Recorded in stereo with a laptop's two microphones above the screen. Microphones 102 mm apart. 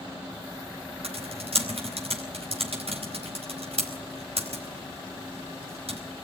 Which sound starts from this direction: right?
Typing on a keyboard, at 1.0 s.